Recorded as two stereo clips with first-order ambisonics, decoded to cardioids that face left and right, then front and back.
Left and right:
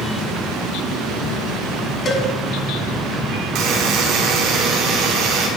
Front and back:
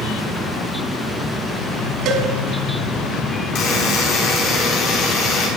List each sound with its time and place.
2.0 s a cowbell: 150° left, 1.7 m
3.5 s a buzzer: 45° right, 3 m